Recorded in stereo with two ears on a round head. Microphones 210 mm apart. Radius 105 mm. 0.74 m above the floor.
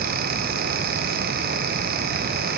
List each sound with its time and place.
Only background noise.